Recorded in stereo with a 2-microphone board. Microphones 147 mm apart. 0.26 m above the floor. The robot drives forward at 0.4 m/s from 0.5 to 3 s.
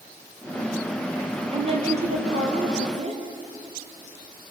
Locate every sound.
1.5 s a woman speaking: 40° right (ahead or behind), 5 m; by 3.2 s 45° right (ahead or behind), 4.5 m